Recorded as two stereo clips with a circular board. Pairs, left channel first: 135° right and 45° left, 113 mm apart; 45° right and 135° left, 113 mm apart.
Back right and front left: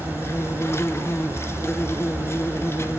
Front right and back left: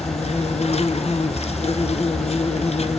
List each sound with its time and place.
0.0 s an insect: 70° right, 1.1 m